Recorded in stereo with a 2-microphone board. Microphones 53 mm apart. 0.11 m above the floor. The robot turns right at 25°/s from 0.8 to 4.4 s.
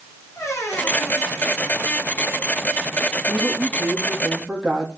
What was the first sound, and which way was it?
A squeak, 90° left.